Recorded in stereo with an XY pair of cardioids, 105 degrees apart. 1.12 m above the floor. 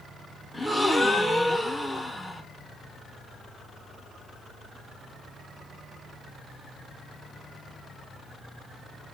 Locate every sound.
0.5 s a gasp: straight ahead, 0.6 m